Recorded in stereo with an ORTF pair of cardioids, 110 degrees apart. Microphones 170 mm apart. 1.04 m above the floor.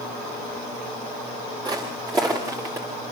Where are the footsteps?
25° right, 6 m; by 2.9 s 15° right, 6 m.